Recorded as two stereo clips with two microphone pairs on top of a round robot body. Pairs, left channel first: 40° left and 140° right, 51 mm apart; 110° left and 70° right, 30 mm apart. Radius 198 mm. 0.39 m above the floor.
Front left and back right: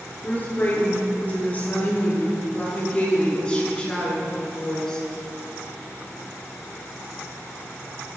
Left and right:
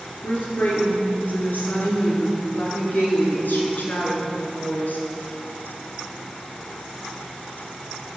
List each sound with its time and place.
0.2 s a woman speaking: 100° left, 10 m; by 5.1 s 125° left, 7 m